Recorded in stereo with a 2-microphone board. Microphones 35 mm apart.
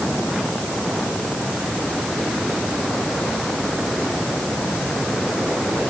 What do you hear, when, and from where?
Only background noise.